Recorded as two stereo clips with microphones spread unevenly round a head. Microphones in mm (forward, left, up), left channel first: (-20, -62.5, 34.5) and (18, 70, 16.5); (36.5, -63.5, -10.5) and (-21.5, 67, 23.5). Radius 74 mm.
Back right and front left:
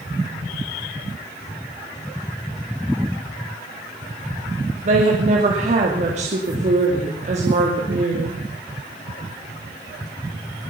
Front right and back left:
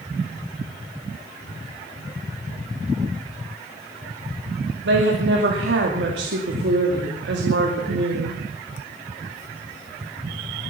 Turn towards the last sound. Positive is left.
turn(degrees=115)